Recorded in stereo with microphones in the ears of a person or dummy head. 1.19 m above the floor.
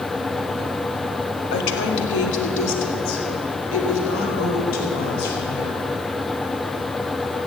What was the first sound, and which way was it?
A woman speaking, 75° left (ahead or behind).